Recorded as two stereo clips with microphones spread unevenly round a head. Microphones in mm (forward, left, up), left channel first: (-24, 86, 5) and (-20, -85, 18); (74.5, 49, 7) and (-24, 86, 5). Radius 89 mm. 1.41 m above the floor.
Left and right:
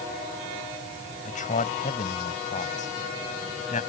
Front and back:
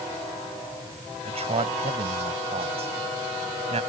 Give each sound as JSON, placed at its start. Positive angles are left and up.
{"t": 1.2, "sound": "a man speaking", "azimuth_deg": 140}